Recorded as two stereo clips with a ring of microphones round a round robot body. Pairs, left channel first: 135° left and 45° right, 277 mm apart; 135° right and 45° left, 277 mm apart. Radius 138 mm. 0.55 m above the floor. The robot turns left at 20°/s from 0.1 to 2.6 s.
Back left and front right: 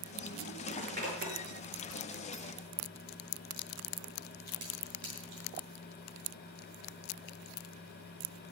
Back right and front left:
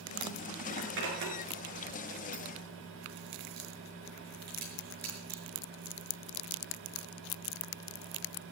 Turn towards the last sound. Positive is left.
turn(degrees=-15)